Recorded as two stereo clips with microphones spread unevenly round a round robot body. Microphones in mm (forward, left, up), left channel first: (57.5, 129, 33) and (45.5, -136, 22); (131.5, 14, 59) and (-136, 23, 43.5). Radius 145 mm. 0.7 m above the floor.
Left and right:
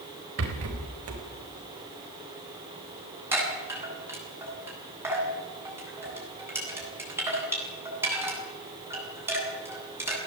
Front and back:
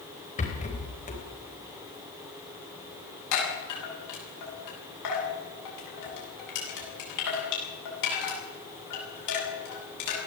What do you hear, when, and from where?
0.4 s a rattle: 65° right, 4 m
3.3 s a chime: 10° right, 8.5 m